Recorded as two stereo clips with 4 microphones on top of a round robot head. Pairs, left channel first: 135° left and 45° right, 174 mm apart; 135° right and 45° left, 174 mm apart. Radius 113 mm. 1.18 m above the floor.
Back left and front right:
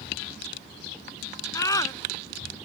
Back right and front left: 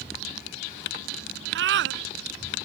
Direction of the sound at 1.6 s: 65° left.